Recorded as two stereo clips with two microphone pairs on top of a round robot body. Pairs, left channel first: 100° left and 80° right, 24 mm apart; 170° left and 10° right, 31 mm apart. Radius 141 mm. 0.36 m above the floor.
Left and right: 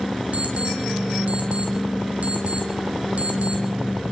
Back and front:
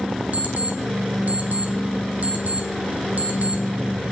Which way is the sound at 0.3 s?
45° right.